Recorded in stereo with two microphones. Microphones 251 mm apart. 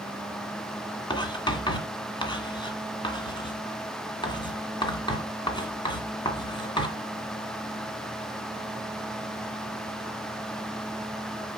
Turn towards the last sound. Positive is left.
turn(degrees=20)  # may be behind; listen again after turning